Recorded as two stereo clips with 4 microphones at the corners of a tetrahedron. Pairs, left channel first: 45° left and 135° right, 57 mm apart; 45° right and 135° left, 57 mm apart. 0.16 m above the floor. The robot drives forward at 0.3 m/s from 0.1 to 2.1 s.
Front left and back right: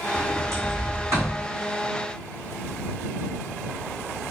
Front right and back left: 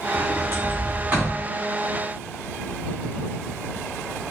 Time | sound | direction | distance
0.1 | a sliding door | 170° right | 1.4 m